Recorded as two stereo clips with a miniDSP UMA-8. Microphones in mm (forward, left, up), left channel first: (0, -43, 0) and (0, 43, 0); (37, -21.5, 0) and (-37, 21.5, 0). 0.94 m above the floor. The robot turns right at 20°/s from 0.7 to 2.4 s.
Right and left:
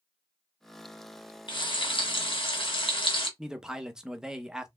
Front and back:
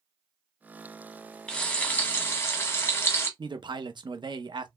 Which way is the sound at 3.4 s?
170° left.